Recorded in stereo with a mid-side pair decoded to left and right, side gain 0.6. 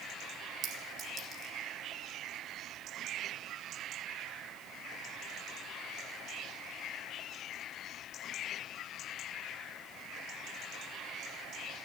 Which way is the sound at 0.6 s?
40° right.